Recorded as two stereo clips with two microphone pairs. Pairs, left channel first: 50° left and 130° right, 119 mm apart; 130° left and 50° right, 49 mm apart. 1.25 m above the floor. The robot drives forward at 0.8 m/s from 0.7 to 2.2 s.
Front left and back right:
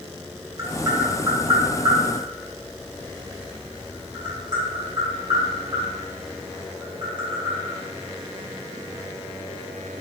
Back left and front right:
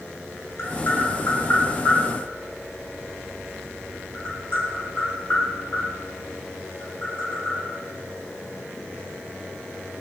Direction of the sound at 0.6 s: 165° left.